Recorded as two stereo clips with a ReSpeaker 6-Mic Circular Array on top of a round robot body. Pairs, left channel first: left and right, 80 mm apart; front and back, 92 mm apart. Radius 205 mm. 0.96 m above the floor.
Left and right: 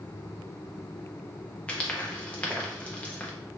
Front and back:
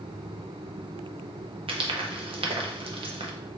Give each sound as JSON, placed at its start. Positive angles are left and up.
{"t": 1.7, "sound": "frying", "azimuth_deg": 165, "distance_m": 0.7}